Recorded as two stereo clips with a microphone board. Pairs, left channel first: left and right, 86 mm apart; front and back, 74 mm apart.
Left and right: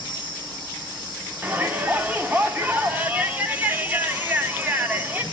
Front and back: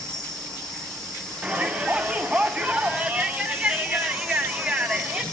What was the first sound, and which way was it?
An insect, 85° right.